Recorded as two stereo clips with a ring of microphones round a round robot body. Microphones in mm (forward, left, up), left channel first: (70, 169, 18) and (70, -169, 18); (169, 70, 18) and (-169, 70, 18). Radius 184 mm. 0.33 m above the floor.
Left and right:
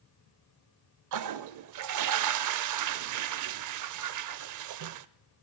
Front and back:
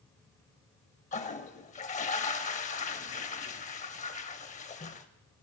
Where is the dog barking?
No dog barking in this recording.